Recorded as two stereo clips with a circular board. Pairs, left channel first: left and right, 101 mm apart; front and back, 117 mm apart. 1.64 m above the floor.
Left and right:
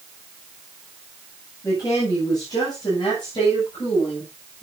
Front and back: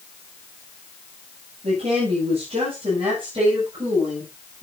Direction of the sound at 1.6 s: 145° left.